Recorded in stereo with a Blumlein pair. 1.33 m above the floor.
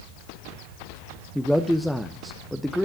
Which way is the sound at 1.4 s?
Straight ahead.